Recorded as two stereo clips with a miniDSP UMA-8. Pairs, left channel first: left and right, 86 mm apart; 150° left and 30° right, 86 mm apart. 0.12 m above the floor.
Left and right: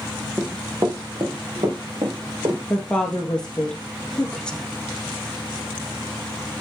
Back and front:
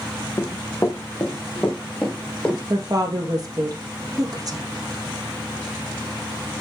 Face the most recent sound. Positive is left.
turn(degrees=10)